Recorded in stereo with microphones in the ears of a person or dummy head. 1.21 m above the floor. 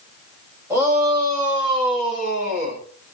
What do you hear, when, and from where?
0.7 s a shout: 15° right (ahead or behind), 7.5 m; by 2.8 s 40° right (ahead or behind), 6 m